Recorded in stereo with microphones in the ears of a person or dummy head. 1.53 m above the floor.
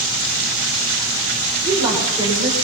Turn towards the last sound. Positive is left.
turn(degrees=-15)  # may be behind; listen again after turning